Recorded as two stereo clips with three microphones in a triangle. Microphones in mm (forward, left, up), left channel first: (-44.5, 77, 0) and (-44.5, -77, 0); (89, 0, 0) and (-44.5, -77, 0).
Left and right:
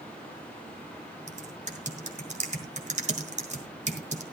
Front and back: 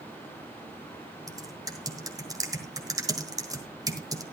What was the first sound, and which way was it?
Typing on a keyboard, 90° right.